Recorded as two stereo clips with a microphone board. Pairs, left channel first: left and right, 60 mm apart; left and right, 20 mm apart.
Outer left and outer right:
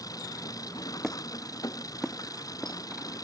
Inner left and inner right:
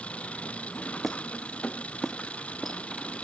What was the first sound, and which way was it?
An engine running, 90° left.